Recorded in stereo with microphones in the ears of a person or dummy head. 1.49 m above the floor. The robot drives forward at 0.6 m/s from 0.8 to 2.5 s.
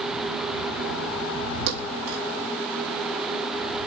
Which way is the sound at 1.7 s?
60° right (ahead or behind).